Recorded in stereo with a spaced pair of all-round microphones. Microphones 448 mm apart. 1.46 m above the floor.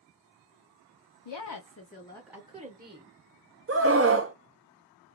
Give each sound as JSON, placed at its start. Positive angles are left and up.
{"t": 1.2, "sound": "a woman speaking", "side_deg": 70, "distance_m": 0.6}
{"t": 3.7, "sound": "a scream", "side_deg": -30, "distance_m": 0.5}